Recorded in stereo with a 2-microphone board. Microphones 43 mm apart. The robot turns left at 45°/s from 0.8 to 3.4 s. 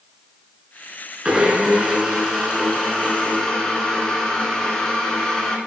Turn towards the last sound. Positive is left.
turn(degrees=20)  # may be behind; listen again after turning